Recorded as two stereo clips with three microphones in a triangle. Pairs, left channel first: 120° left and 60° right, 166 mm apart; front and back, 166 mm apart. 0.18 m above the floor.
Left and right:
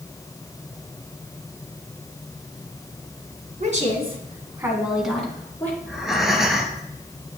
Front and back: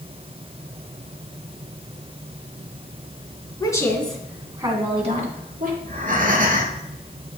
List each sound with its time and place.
3.6 s a woman speaking: 55° right, 2 m; by 5.7 s 165° right, 3 m
5.8 s breathing: 150° right, 1.7 m